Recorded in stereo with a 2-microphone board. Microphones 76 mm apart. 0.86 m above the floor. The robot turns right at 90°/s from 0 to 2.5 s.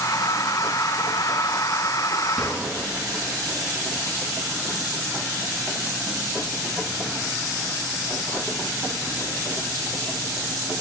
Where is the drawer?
5° right (ahead or behind), 3 m; by 2.6 s 20° right (ahead or behind), 3 m.